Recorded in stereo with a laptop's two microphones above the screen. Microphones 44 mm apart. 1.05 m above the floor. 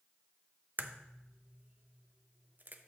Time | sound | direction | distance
0.8 | a crack | 45° right (ahead or behind) | 0.7 m